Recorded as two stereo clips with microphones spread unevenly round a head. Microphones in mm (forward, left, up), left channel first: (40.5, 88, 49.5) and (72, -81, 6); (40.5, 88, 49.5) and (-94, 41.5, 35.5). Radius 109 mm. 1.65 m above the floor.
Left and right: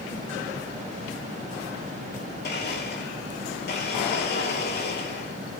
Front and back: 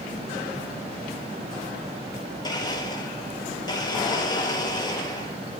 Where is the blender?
80° left, 4.5 m.